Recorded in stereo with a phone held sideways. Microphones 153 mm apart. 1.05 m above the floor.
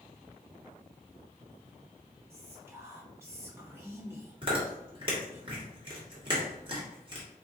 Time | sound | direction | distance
2.3 | whispering | 20° right (ahead or behind) | 1.5 m
4.4 | chewing | 35° right (ahead or behind) | 1.8 m